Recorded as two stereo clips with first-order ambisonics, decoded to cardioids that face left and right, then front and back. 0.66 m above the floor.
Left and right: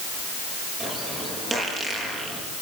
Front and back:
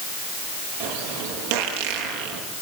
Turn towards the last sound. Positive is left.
turn(degrees=-165)